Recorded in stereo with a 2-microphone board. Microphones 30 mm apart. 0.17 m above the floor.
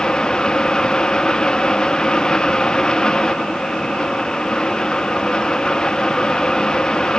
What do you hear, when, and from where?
Only background noise.